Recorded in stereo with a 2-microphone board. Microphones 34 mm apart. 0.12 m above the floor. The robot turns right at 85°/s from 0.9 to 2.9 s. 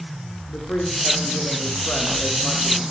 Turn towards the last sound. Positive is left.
turn(degrees=-145)